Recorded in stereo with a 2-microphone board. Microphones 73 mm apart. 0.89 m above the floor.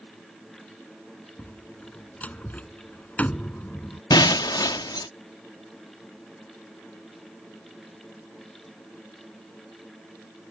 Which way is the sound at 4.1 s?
75° left (ahead or behind).